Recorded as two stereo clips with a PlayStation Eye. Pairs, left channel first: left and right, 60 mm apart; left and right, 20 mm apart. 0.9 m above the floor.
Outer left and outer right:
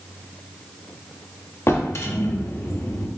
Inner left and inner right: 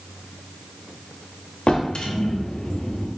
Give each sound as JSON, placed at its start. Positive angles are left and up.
{"t": 1.7, "sound": "a drawer", "side_deg": 55, "distance_m": 0.8}